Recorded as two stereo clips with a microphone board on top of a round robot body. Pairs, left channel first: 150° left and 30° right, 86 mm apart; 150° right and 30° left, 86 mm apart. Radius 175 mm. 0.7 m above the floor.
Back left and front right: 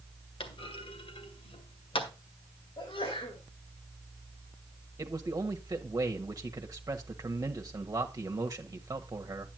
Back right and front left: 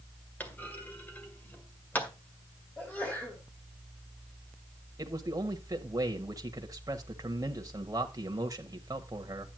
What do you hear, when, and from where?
0.4 s a clunk: 140° left, 1.9 m
2.8 s a sneeze: 135° left, 4 m
5.0 s a man speaking: straight ahead, 1.5 m